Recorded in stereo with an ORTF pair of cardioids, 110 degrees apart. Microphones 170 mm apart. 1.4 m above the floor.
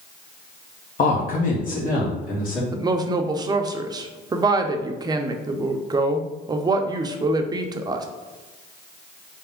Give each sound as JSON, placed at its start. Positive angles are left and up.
{"t": 1.0, "sound": "a man speaking", "azimuth_deg": 50, "distance_m": 1.2}
{"t": 2.7, "sound": "a woman speaking", "azimuth_deg": -20, "distance_m": 0.7}